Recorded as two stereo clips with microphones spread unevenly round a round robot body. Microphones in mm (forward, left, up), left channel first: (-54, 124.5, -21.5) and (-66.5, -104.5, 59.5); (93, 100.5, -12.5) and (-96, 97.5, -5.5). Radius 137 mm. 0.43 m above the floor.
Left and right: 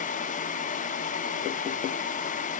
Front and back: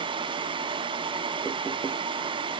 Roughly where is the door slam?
I don't hear a door slam.